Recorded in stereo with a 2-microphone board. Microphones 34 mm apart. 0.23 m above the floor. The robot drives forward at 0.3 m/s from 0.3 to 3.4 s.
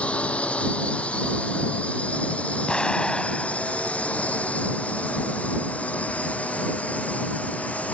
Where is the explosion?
25° left (ahead or behind); by 4.5 s 30° left (ahead or behind).